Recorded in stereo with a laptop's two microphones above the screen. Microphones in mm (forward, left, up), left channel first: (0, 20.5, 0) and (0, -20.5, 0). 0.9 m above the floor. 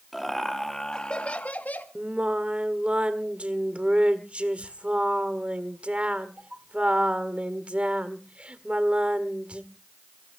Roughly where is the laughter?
Centre.